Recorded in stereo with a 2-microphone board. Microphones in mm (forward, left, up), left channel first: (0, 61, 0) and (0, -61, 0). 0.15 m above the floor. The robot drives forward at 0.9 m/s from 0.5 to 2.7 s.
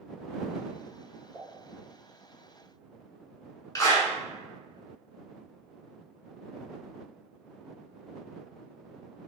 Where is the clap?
25° left (ahead or behind), 1.2 m.